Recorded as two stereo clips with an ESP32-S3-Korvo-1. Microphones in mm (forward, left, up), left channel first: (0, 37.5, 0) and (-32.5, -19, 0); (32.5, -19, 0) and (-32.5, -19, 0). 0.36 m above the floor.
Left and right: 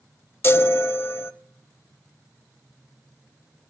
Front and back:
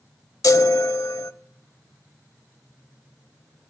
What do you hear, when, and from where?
0.4 s a chime: 15° left, 0.6 m